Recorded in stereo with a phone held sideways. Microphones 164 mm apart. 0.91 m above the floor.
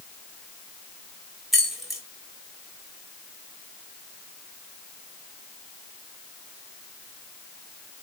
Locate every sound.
1.5 s keys jangling: centre (ahead or behind), 3.5 m